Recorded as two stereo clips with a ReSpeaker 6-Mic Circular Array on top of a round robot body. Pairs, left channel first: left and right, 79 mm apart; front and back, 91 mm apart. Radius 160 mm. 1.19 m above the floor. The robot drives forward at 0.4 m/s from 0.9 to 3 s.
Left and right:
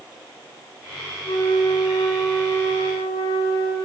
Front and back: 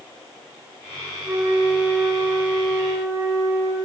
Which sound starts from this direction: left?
A flute, at 1.2 s.